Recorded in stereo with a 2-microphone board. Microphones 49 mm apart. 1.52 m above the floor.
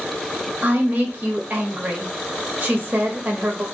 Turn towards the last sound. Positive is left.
turn(degrees=-30)  # may be behind; listen again after turning